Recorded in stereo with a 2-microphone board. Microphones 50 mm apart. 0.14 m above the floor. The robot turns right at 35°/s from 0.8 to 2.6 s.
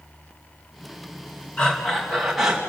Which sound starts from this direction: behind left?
Breathing, at 1.6 s.